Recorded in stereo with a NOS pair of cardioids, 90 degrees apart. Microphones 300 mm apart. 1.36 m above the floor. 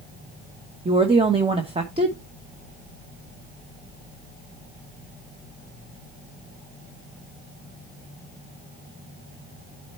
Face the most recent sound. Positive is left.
turn(degrees=-20)